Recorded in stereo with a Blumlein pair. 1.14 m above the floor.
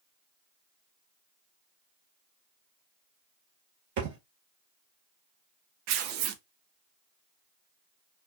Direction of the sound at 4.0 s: 50° right.